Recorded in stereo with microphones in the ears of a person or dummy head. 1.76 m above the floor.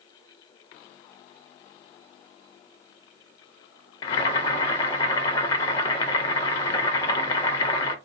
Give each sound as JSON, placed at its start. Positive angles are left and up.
{"t": 4.0, "sound": "boiling", "side_deg": 35, "distance_m": 0.7}